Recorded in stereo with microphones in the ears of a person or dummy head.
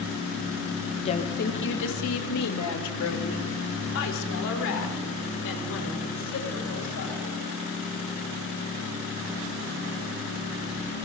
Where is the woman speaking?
30° left (ahead or behind), 1.6 m; by 7.4 s 70° left (ahead or behind), 9 m.